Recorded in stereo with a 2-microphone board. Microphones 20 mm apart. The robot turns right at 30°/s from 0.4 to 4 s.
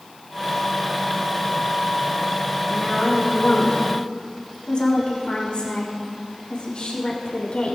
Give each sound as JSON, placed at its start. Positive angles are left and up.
{"t": 2.7, "sound": "a woman speaking", "azimuth_deg": 20, "distance_m": 5.0}